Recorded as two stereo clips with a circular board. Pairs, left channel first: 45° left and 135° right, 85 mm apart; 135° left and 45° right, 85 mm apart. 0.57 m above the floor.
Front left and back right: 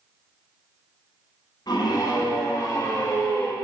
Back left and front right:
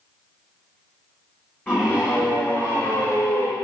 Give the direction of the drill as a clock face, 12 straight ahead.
I don't hear a drill.